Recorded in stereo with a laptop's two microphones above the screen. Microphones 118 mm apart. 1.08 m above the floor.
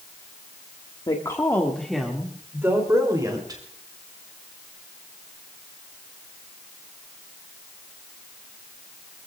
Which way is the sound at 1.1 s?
40° left (ahead or behind).